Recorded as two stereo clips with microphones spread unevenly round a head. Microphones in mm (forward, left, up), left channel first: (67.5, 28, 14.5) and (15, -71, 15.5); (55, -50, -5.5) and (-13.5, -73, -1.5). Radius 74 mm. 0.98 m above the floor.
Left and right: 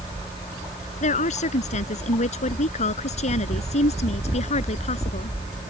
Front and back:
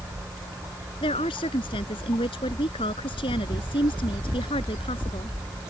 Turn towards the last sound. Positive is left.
turn(degrees=40)